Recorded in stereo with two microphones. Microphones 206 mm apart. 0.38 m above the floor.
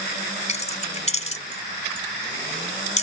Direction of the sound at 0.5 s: 35° left (ahead or behind).